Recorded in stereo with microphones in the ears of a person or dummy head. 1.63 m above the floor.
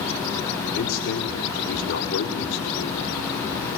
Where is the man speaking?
70° left (ahead or behind), 5 m.